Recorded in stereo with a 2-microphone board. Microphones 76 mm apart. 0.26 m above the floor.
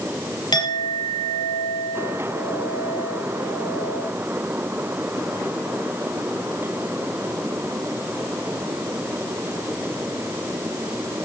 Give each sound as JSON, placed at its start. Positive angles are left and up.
{"t": 0.5, "sound": "a clink", "side_deg": 65, "distance_m": 3.5}